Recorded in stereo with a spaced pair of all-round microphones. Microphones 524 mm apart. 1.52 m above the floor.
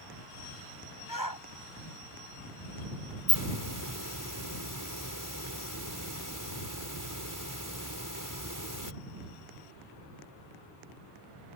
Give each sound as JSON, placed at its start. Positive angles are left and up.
{"t": 1.1, "sound": "a shout", "side_deg": 40}
{"t": 3.3, "sound": "a hiss", "side_deg": -35}